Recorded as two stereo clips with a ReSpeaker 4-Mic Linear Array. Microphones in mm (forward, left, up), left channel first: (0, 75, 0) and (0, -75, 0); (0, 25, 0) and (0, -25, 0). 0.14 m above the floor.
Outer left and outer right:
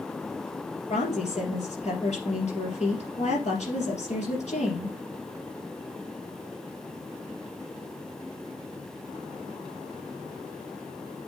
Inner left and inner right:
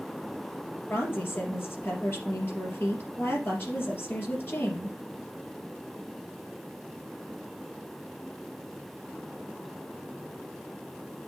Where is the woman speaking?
50° left (ahead or behind), 3 m.